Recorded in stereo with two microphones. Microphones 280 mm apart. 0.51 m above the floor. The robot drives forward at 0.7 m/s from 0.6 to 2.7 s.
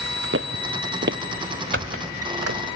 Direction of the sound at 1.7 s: 45° right (ahead or behind).